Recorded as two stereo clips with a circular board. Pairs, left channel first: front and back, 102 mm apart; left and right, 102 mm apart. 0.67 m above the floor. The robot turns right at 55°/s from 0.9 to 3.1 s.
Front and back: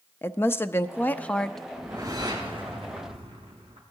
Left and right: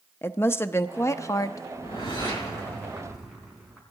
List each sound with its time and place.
0.2 s a woman speaking: 45° left, 0.5 m; by 1.6 s 85° left, 0.5 m
1.7 s a whoosh: 105° left, 4 m; by 3.8 s straight behind, 4 m